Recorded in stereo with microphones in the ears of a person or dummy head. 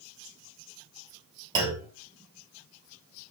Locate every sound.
1.6 s a clunk: 20° right (ahead or behind), 4.5 m